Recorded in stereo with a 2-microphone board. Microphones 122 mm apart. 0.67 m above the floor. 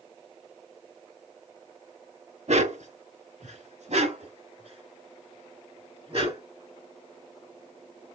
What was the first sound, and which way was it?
A dog barking, 65° right (ahead or behind).